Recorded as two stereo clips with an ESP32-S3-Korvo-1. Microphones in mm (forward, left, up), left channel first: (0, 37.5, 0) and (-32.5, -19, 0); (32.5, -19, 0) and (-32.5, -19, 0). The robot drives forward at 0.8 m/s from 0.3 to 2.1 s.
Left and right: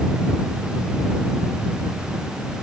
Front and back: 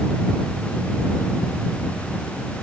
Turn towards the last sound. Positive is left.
No sound to turn to.